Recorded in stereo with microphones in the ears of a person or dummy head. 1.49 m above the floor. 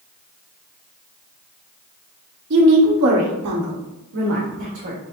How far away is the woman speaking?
About 1.2 m.